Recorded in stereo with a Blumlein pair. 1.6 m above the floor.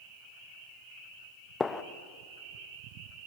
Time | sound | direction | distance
1.6 | a gunshot | 15° left | 1.0 m